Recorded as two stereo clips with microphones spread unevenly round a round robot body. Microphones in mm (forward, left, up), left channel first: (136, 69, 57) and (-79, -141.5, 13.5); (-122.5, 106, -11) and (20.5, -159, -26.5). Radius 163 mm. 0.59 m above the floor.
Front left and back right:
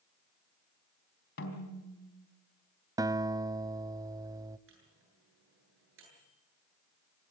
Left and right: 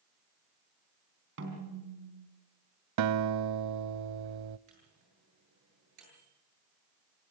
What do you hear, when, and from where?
1.4 s a snare drum: 5° right, 4 m
3.0 s a guitar: 55° right, 0.5 m
4.7 s a microwave: 90° right, 9 m